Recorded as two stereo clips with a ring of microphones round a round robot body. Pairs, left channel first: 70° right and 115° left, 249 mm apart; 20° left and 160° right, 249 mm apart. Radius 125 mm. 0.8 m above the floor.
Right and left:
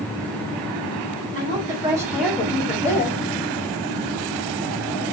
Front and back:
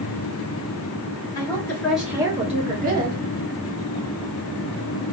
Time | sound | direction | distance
1.4 | a woman speaking | 80° left | 1.0 m